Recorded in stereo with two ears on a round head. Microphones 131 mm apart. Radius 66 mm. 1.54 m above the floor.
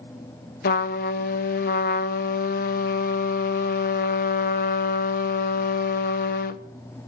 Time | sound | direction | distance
0.6 | a trumpet | 65° left (ahead or behind) | 0.7 m